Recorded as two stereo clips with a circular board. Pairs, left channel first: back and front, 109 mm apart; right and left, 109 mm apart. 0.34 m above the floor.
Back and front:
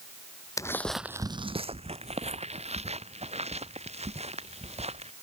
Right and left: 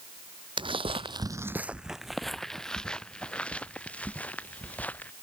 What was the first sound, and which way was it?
Footsteps, 125° left.